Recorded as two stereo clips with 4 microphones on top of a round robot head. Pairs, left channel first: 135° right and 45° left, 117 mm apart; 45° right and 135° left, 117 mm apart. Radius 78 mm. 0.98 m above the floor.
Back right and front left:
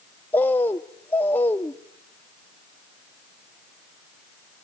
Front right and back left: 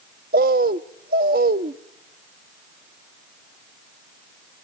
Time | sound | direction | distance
0.3 | a bird | 150° left | 0.5 m